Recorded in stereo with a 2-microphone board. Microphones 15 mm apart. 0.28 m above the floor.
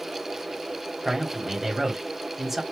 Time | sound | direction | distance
1.1 | a man speaking | 25° right (ahead or behind) | 1.9 m